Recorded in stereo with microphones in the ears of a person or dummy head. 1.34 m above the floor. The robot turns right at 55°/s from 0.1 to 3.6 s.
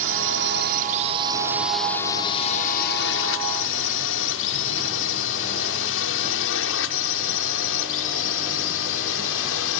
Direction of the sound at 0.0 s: 70° right (ahead or behind).